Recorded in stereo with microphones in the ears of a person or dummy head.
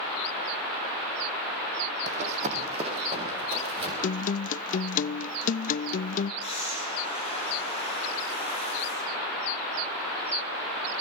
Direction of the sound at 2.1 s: 40° right (ahead or behind).